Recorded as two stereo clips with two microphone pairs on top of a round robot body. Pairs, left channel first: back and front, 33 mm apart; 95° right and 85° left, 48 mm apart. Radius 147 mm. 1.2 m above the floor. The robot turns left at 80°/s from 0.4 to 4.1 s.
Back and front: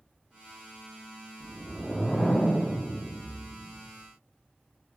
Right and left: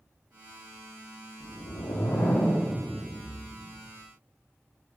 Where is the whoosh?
60° right, 1.2 m; by 3.9 s 105° left, 1.2 m.